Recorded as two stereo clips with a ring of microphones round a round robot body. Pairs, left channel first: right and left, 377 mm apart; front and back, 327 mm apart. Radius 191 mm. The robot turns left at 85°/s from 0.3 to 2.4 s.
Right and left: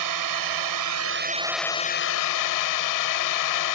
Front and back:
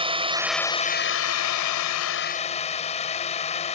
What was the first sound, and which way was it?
A drone, 110° left.